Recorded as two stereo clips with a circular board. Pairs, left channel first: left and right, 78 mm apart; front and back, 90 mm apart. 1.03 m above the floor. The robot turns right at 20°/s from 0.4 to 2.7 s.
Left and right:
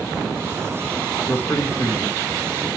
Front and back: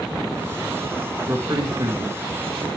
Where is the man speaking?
125° left, 1.7 m; by 2.7 s 155° left, 1.7 m.